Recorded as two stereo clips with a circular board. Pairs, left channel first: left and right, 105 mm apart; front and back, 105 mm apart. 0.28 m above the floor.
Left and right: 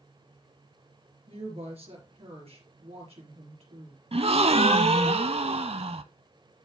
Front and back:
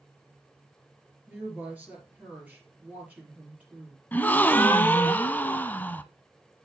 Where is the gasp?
75° right, 0.5 m.